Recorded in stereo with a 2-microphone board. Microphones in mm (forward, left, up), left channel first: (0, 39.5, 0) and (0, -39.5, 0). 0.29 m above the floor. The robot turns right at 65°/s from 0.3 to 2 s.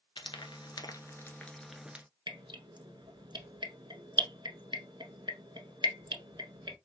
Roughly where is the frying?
Left.